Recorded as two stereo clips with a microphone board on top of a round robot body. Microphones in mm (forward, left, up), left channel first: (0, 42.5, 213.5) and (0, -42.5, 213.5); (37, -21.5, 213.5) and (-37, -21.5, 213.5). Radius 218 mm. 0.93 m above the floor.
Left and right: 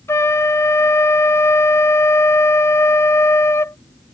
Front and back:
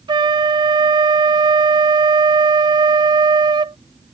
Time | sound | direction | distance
0.1 | a flute | 150° left | ?